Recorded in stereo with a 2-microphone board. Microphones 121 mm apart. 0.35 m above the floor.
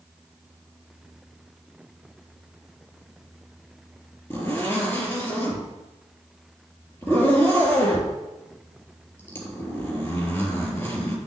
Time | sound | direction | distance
4.3 | a zipper | 20° left (ahead or behind) | 3.5 m